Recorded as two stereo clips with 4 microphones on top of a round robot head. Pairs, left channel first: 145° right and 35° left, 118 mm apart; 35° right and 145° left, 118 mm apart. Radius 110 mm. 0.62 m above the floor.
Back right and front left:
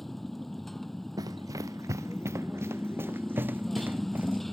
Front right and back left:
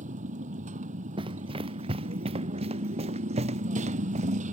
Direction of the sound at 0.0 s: 125° left.